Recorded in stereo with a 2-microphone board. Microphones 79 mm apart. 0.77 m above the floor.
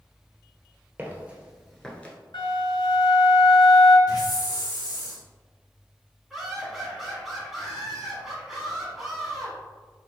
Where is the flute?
85° left, 1.4 m.